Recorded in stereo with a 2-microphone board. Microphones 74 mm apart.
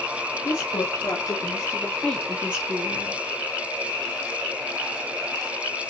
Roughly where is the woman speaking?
Left.